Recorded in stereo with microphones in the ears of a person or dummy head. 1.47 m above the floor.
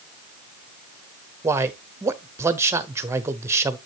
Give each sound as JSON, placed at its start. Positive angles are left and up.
{"t": 1.4, "sound": "a man speaking", "side_deg": -10, "distance_m": 0.6}